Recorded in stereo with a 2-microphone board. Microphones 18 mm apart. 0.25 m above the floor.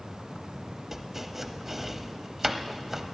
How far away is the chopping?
About 0.7 m.